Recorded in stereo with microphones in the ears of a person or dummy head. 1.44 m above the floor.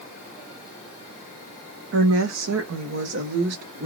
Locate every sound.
1.9 s a woman speaking: 65° right (ahead or behind), 0.8 m; by 3.9 s 40° right (ahead or behind), 1.2 m